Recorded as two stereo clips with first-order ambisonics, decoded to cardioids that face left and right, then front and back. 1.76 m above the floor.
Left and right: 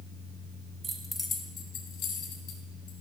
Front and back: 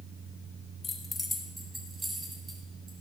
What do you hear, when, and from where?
0.8 s keys jangling: 45° right, 1.0 m; by 2.9 s 105° left, 3 m